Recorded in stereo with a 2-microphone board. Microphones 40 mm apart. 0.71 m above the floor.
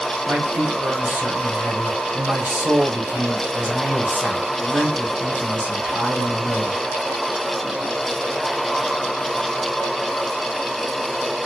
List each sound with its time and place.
0.3 s a man speaking: 55° right (ahead or behind), 3 m